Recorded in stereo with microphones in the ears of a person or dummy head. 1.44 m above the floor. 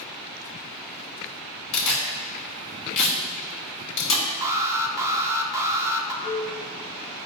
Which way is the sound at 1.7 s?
70° left (ahead or behind).